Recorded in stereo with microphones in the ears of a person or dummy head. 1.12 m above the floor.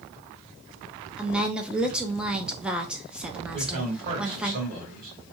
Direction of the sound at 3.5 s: 45° right (ahead or behind).